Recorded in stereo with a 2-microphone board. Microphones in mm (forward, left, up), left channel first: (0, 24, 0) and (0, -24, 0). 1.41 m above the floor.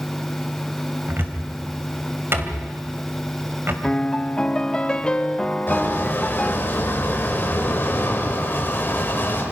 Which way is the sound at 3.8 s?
20° left (ahead or behind).